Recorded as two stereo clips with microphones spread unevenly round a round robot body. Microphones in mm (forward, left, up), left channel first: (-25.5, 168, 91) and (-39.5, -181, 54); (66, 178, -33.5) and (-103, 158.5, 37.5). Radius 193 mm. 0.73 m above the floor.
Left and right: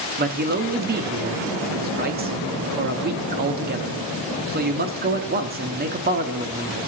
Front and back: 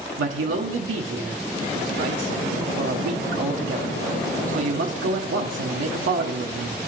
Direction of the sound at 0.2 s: 150° right.